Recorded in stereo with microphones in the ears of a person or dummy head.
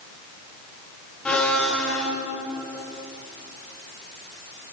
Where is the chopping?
I don't hear chopping.